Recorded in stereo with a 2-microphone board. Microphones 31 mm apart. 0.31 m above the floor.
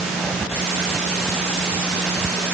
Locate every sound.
Only background noise.